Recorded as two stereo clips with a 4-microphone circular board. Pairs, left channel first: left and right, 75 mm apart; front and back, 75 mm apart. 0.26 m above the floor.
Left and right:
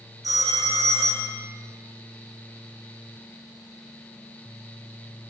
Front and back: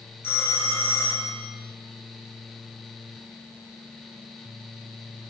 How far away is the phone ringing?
About 3.5 m.